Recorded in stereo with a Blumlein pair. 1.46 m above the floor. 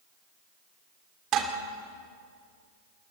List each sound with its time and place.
1.3 s dishes clattering: 30° right, 2.5 m